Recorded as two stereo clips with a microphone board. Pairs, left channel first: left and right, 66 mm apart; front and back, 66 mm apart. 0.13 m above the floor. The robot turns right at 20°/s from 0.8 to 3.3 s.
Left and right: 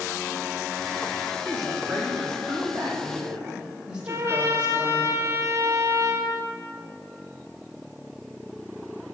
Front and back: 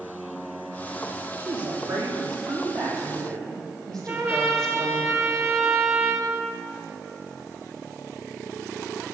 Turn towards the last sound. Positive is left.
turn(degrees=-140)